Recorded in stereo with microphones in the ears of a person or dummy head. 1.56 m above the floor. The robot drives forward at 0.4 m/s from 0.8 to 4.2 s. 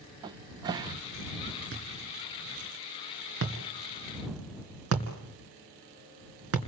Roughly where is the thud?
Right.